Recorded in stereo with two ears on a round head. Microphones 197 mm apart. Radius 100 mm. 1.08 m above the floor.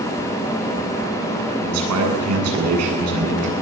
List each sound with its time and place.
1.6 s a man speaking: 90° right, 9 m